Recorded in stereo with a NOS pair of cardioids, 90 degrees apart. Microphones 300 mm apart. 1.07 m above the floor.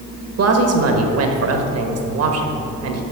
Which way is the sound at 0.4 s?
60° right.